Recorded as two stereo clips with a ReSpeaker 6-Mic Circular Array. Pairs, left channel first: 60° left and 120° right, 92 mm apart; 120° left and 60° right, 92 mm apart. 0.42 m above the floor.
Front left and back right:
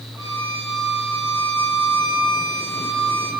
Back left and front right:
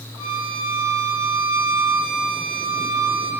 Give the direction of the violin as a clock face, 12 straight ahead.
2 o'clock.